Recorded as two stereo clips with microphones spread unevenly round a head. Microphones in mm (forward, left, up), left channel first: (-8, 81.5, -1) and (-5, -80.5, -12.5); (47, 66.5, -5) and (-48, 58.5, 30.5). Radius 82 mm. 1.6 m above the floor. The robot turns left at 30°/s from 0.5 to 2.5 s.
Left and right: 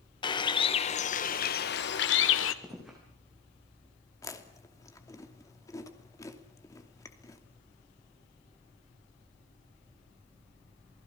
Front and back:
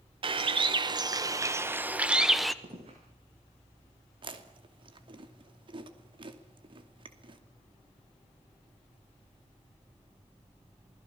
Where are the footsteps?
175° right, 7 m.